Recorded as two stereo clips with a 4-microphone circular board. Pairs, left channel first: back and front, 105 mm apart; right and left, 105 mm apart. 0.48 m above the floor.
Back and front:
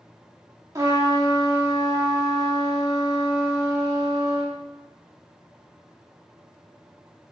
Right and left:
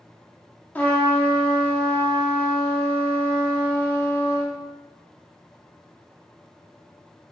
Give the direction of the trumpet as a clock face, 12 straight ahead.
1 o'clock.